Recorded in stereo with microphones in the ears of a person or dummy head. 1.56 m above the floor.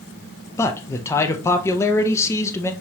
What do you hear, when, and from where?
0.6 s a man speaking: 10° left (ahead or behind), 0.6 m